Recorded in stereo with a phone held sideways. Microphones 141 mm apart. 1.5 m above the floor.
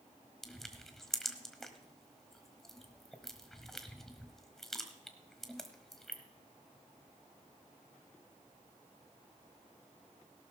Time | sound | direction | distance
0.4 | crushing | 5° left (ahead or behind) | 1.3 m